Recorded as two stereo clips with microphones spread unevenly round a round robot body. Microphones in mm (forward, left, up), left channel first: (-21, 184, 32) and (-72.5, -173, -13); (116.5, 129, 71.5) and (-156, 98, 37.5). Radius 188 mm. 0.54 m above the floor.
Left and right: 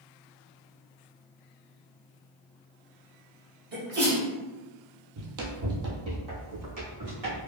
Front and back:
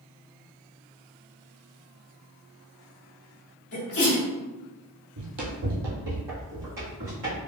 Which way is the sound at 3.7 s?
40° right.